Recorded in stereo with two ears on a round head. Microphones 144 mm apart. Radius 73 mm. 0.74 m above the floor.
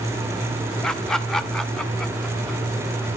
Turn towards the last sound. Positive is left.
turn(degrees=5)  # may be behind; listen again after turning